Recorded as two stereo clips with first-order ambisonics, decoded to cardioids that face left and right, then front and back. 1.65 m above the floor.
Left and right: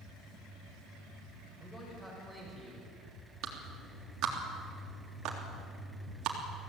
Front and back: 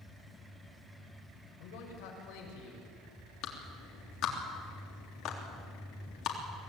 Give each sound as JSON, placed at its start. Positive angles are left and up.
{"t": 1.6, "sound": "a man speaking", "azimuth_deg": 5, "distance_m": 7.5}
{"t": 3.4, "sound": "a clap", "azimuth_deg": -45, "distance_m": 3.5}